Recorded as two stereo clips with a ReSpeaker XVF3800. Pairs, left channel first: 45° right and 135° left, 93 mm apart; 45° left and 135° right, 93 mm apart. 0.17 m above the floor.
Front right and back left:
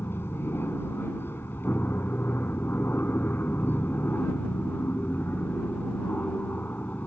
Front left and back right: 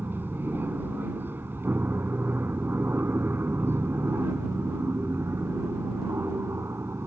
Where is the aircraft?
85° right; by 7.1 s 100° right.